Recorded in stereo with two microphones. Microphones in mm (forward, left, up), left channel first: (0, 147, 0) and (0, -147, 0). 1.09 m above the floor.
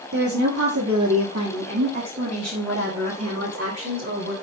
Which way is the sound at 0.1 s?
75° right (ahead or behind).